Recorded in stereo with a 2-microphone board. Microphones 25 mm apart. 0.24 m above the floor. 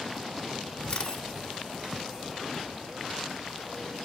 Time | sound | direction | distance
0.9 | a camera shutter | 30° left (ahead or behind) | 1.1 m